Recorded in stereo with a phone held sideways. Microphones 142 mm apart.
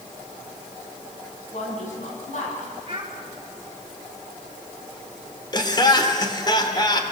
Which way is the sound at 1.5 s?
55° left (ahead or behind).